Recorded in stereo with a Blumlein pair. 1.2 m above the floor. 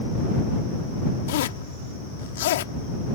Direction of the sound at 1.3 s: 55° left.